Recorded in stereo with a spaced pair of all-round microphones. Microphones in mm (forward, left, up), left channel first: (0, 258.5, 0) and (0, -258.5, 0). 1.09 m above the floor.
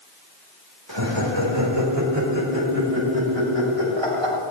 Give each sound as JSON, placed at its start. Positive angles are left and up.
{"t": 0.9, "sound": "laughter", "side_deg": -55, "distance_m": 4.0}